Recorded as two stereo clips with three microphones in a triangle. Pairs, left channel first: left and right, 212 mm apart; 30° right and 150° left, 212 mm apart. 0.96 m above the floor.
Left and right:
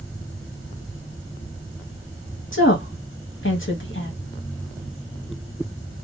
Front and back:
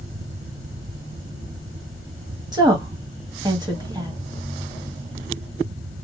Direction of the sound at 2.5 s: 80° left.